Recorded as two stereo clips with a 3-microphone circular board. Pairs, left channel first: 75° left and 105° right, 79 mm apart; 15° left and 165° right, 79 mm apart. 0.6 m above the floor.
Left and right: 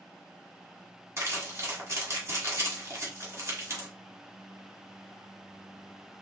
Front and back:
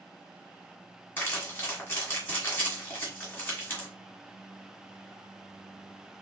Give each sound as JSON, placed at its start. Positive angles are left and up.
{"t": 1.2, "sound": "crumpling", "azimuth_deg": -50, "distance_m": 1.7}